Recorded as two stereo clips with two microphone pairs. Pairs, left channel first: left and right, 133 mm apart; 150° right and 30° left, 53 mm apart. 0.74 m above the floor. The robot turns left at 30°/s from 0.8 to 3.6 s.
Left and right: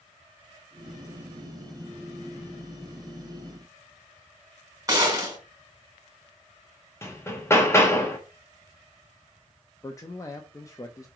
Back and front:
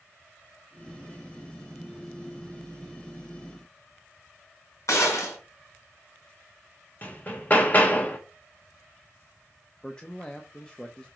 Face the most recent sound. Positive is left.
turn(degrees=140)